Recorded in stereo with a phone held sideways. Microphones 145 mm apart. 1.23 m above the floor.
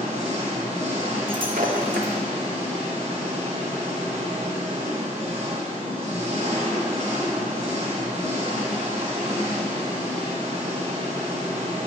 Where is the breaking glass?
75° right (ahead or behind), 0.9 m.